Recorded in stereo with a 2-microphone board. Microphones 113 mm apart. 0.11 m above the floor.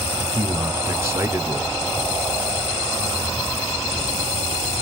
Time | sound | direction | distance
0.3 | a man speaking | 25° right (ahead or behind) | 1.4 m